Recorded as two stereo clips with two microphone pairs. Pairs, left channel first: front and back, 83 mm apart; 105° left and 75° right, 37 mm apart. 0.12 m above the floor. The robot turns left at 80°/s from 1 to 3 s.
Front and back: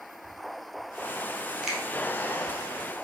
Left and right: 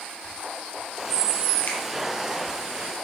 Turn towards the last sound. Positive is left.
turn(degrees=-5)